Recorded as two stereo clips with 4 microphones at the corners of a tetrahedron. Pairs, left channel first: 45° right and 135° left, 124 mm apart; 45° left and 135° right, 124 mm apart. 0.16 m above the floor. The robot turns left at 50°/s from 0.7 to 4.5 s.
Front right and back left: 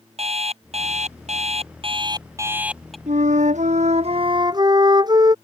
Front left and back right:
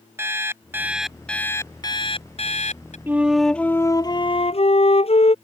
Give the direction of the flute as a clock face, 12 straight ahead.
7 o'clock.